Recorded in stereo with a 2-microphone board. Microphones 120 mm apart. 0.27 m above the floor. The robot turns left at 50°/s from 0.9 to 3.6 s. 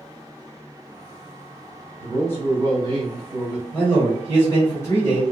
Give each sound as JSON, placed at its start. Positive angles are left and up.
{"t": 2.0, "sound": "a man speaking", "side_deg": 25, "distance_m": 1.6}
{"t": 3.7, "sound": "a man speaking", "side_deg": 20, "distance_m": 1.0}